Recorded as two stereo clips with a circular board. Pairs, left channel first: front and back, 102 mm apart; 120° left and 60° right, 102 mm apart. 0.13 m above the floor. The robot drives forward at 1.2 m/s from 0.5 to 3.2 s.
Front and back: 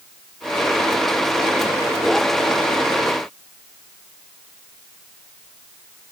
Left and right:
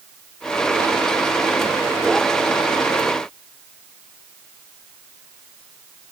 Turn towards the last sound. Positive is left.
No sound to turn to.